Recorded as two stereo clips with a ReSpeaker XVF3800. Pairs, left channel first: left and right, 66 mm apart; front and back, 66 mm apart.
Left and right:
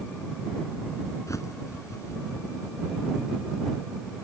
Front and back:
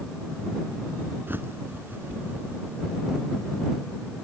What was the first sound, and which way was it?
A bird, 125° left.